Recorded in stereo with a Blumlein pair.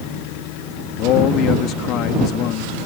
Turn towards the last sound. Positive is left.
turn(degrees=35)